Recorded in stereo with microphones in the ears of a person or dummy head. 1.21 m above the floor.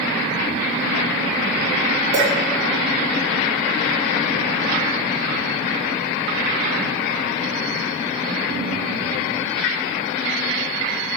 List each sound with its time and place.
2.1 s a clink: 25° right (ahead or behind), 1.8 m